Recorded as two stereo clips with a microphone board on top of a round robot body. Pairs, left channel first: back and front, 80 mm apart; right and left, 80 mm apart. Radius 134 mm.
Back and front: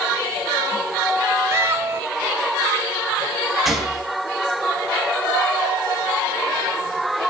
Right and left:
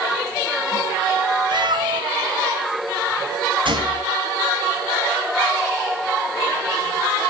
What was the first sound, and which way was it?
A cat meowing, 60° left.